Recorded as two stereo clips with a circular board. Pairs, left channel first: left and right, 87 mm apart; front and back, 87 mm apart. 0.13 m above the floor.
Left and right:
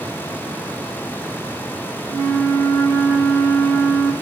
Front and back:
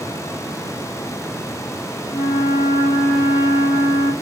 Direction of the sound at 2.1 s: 150° left.